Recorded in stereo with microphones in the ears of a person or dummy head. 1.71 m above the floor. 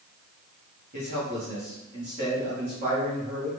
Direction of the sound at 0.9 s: 40° right (ahead or behind).